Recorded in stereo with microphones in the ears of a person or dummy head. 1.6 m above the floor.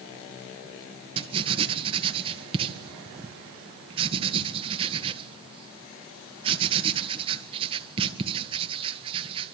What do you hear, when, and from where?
1.2 s writing: 30° right (ahead or behind), 1.6 m